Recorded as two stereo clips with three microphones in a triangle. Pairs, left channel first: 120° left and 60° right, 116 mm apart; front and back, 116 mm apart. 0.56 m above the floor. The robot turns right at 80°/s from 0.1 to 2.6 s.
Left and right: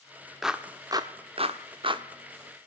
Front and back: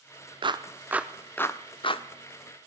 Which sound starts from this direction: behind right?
A clap, at 0.4 s.